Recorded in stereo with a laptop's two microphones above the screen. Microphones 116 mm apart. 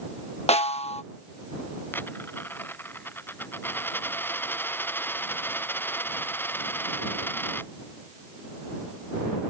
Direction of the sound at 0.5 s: 65° left (ahead or behind).